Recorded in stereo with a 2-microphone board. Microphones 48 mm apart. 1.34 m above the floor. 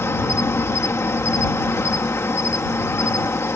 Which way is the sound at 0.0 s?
75° left (ahead or behind).